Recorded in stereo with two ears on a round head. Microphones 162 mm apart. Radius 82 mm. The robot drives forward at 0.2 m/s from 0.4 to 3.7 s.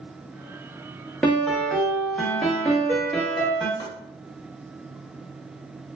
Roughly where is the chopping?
Left.